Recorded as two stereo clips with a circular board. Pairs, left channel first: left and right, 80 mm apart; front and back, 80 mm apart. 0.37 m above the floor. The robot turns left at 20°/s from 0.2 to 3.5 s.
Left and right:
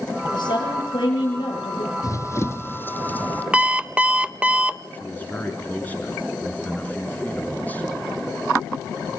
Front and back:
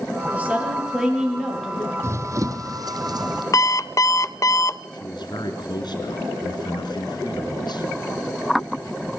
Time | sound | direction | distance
0.3 | a woman speaking | 110° left | 7 m
2.0 | running footsteps | 130° left | 0.7 m
3.5 | an alarm clock | 20° right | 0.6 m
4.9 | a man speaking | 20° left | 4 m